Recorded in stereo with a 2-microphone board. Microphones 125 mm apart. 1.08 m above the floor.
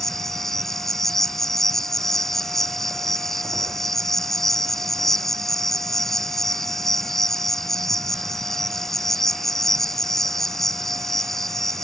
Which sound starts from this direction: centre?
An insect, at 0.0 s.